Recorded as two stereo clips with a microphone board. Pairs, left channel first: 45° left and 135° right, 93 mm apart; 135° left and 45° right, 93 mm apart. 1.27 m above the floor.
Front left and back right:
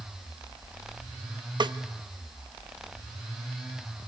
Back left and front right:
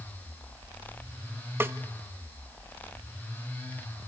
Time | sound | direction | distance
1.6 | a snare drum | 110° right | 0.6 m